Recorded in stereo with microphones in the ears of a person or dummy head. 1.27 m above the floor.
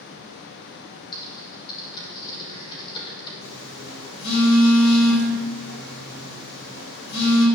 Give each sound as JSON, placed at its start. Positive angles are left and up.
{"t": 1.1, "sound": "typing on a keyboard", "side_deg": 20, "distance_m": 3.5}
{"t": 3.4, "sound": "a phone buzzing", "side_deg": 80, "distance_m": 5.5}